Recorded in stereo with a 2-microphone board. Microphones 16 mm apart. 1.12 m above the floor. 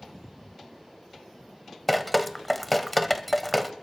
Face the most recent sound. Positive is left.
turn(degrees=10)  # may be behind; listen again after turning